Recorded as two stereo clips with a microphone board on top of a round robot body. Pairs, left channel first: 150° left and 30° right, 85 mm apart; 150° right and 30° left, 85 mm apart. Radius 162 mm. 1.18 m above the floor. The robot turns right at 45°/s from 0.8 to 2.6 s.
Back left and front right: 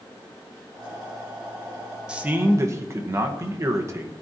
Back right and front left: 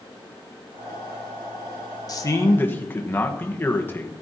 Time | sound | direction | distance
2.1 | a man speaking | 110° right | 1.5 m